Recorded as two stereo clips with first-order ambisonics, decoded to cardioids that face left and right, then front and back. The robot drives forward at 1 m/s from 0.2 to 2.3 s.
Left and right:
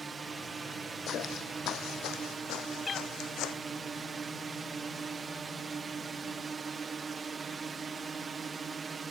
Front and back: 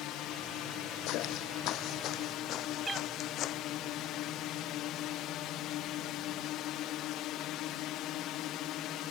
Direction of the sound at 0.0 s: 20° right.